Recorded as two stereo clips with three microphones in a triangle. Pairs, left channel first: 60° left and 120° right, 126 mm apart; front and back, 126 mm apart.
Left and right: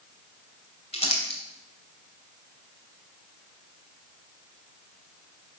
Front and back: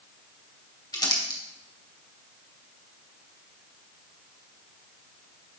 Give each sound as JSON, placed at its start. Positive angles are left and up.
{"t": 0.9, "sound": "crumpling", "azimuth_deg": 50, "distance_m": 2.5}